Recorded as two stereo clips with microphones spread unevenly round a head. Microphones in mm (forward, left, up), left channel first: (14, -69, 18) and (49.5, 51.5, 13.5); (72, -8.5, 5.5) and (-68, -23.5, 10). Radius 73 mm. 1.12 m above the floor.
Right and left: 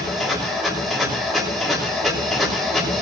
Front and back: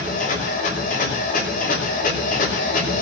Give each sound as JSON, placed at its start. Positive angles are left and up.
{"t": 0.0, "sound": "a machine running", "azimuth_deg": -15, "distance_m": 6.5}